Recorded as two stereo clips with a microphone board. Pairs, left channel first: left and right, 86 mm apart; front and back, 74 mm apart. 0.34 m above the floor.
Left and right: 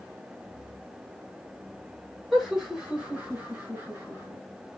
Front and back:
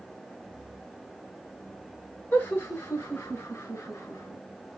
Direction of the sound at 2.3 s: Straight ahead.